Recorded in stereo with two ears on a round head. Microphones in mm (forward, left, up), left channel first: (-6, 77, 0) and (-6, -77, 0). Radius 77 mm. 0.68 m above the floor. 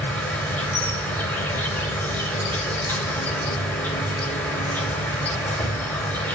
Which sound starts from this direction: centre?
An insect, at 0.0 s.